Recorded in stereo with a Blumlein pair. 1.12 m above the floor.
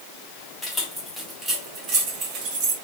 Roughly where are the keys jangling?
Ahead.